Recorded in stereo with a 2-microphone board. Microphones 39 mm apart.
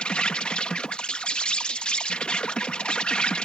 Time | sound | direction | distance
0.0 | an insect | 25° left (ahead or behind) | ?